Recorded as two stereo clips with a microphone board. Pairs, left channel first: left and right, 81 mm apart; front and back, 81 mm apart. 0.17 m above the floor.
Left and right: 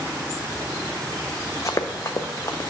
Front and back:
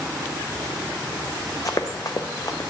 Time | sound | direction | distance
1.6 | running footsteps | 45° left | 0.7 m